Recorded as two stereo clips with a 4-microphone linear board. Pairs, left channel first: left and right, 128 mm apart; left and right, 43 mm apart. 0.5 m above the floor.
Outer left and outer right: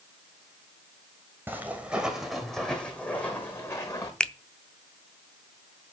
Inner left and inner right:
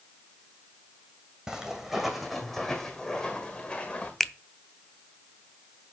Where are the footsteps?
15° right (ahead or behind), 1.6 m; by 4.1 s 25° left (ahead or behind), 2 m.